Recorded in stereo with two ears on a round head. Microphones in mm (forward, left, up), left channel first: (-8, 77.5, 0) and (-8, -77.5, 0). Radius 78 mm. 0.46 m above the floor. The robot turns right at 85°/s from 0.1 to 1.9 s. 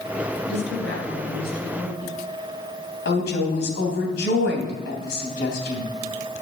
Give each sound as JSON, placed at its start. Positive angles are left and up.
{"t": 0.5, "sound": "a woman speaking", "azimuth_deg": 60, "distance_m": 5.0}
{"t": 3.0, "sound": "a woman speaking", "side_deg": 70, "distance_m": 3.0}